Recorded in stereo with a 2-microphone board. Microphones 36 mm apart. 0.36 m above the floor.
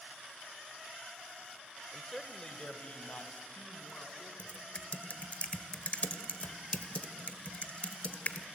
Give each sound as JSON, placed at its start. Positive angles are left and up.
{"t": 1.9, "sound": "a man speaking", "side_deg": 0, "distance_m": 0.9}
{"t": 4.4, "sound": "typing on a keyboard", "side_deg": 40, "distance_m": 0.9}